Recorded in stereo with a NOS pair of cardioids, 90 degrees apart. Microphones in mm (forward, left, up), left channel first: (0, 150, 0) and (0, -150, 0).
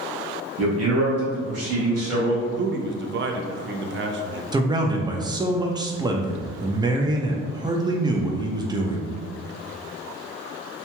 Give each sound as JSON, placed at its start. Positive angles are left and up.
{"t": 0.6, "sound": "a man speaking", "azimuth_deg": -55, "distance_m": 1.1}
{"t": 2.5, "sound": "a man speaking", "azimuth_deg": -40, "distance_m": 0.5}
{"t": 4.5, "sound": "a man speaking", "azimuth_deg": -15, "distance_m": 0.6}